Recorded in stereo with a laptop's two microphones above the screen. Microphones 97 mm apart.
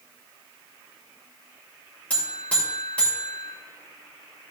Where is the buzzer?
15° left (ahead or behind), 2 m.